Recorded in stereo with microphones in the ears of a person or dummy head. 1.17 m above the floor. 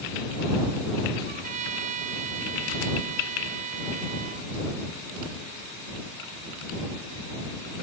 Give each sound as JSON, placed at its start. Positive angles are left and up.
{"t": 1.2, "sound": "a trumpet", "side_deg": -40}